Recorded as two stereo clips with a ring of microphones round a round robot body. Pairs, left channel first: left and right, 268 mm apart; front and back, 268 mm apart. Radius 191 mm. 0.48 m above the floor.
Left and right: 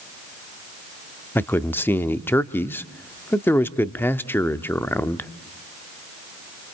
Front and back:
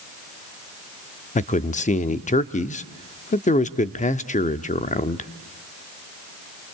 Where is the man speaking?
15° left, 0.7 m.